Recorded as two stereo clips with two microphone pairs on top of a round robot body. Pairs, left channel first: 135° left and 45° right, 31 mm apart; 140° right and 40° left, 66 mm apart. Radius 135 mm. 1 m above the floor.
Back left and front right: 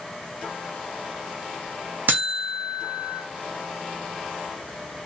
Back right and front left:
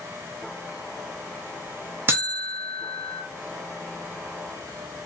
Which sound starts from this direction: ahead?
A buzzer, at 2.1 s.